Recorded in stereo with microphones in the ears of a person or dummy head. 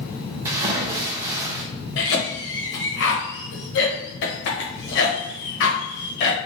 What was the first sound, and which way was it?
A splash, 20° right (ahead or behind).